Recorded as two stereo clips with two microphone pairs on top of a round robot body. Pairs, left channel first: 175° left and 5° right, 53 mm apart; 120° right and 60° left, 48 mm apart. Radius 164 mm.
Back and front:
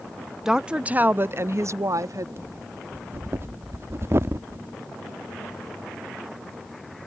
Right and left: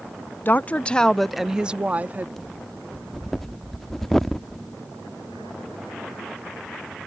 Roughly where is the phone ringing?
I don't hear a phone ringing.